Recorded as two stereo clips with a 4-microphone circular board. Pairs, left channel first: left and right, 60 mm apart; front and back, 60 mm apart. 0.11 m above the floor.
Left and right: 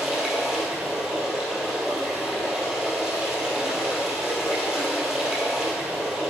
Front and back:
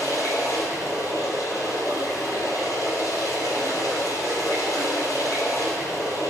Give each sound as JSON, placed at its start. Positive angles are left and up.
{"t": 0.0, "sound": "running water", "azimuth_deg": -10, "distance_m": 2.5}